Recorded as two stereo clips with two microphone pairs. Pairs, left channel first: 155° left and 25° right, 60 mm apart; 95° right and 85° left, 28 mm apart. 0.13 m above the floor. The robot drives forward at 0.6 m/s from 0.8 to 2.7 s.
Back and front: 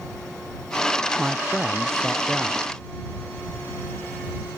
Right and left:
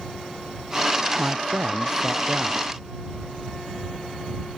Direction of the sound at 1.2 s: 55° left.